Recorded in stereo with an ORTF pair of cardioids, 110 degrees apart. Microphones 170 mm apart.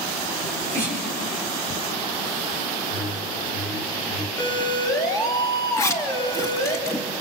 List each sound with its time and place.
0.4 s a sneeze: 15° left, 7 m
2.9 s a whoosh: 20° left, 3.5 m
4.4 s a siren: 25° left, 7.5 m
5.8 s a zipper: 20° left, 2.5 m